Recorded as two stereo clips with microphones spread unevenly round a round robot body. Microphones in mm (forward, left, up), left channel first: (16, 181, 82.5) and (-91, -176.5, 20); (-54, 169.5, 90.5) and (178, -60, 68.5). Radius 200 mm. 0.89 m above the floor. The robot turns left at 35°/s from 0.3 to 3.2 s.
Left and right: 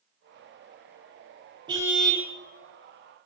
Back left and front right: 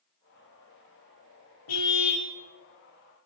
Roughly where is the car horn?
Behind.